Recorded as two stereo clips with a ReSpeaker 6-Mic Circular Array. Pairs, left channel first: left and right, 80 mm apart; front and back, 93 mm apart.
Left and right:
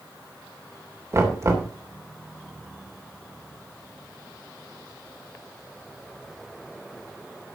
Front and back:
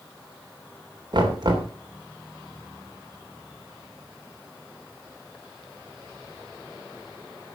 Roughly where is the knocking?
Behind right.